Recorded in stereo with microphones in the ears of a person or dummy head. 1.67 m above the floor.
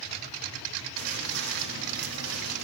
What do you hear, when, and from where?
1.0 s footsteps: 55° right (ahead or behind), 4.5 m; by 2.6 s 60° right (ahead or behind), 4 m